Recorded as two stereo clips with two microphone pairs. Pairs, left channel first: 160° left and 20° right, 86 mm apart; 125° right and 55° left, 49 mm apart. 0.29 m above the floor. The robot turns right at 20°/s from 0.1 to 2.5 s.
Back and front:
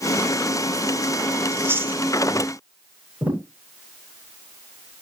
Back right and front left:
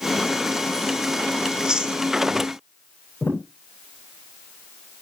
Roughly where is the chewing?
Ahead.